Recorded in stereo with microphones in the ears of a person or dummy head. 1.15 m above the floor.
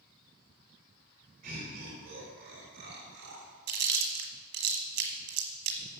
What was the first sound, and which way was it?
Laughter, 50° right (ahead or behind).